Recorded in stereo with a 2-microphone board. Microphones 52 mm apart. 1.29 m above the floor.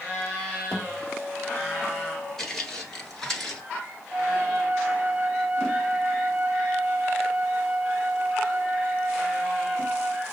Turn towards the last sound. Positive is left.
turn(degrees=-40)  # may be behind; listen again after turning